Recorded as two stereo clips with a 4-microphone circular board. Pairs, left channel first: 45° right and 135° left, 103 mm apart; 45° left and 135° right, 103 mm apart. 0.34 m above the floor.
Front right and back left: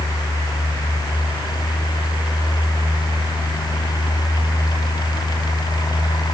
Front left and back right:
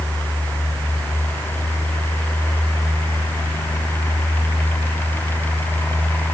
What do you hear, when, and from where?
Only background noise.